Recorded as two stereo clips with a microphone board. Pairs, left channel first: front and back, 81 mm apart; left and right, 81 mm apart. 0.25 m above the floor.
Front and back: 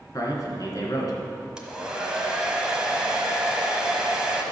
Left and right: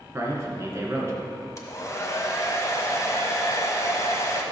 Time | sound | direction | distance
0.1 | a man speaking | 35° right | 2.5 m
1.6 | a hair dryer | 105° left | 1.4 m